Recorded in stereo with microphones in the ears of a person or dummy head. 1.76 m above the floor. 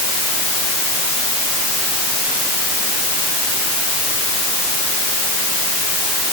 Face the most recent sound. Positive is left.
No sound to turn to.